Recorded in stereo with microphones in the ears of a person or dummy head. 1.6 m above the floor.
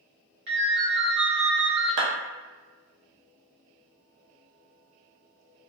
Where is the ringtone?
65° right (ahead or behind), 1.3 m.